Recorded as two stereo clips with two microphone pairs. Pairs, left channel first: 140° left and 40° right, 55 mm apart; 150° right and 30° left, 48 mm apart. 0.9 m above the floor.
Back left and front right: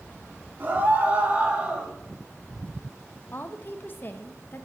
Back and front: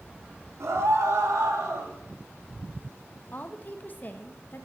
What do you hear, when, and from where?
0.6 s a scream: 15° left, 3 m; by 1.9 s 35° left, 3 m
3.3 s a woman speaking: 175° left, 1.3 m